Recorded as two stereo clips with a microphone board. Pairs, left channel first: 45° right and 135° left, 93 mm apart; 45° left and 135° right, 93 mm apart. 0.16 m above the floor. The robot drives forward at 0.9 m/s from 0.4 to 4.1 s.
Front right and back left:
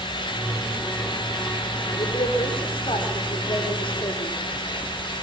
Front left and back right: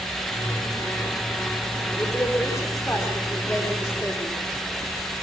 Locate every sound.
1.9 s a woman speaking: 15° right, 10 m; by 4.4 s 20° right, 8 m